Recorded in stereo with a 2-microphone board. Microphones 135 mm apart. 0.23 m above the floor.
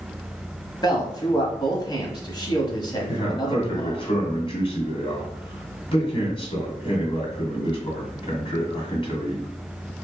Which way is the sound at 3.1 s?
40° left (ahead or behind).